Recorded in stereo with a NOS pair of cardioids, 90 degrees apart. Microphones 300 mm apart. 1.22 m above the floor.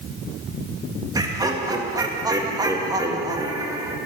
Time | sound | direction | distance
1.1 | laughter | 10° right | 1.8 m